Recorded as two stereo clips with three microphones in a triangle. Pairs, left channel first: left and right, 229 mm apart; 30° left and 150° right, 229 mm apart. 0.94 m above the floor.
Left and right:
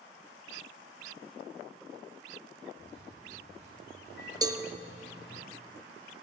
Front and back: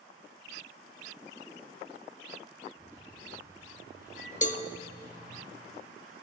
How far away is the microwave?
About 7 m.